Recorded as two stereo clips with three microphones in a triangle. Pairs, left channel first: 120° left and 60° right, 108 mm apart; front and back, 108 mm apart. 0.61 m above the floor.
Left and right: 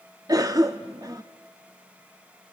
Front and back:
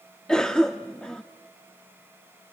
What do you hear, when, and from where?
0.3 s a cough: 80° right, 0.7 m